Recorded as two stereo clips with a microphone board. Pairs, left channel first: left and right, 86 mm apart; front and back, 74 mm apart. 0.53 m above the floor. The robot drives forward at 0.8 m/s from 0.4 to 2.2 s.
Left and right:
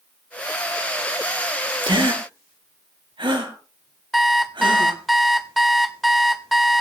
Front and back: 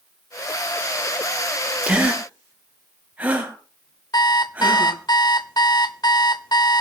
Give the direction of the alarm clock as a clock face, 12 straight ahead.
12 o'clock.